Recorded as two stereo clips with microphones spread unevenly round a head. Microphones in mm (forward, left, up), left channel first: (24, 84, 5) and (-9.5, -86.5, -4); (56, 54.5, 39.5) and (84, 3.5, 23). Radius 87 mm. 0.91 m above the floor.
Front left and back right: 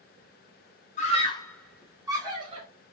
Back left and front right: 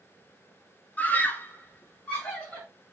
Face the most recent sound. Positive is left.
turn(degrees=-155)